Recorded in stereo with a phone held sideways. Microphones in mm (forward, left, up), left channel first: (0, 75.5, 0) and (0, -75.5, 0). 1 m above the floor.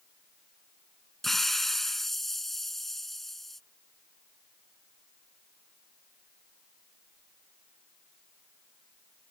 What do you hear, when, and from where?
1.2 s a hiss: centre (ahead or behind)